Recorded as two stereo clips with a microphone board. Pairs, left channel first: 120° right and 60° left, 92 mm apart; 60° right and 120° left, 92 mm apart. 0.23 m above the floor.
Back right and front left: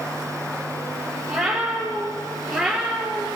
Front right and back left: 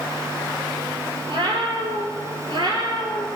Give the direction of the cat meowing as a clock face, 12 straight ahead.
7 o'clock.